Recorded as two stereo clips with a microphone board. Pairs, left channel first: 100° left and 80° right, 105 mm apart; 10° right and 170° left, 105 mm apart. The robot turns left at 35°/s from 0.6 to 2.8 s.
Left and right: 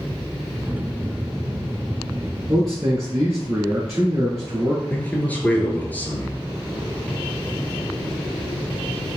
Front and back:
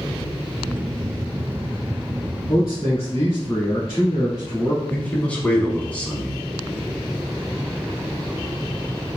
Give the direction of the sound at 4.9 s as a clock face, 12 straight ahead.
10 o'clock.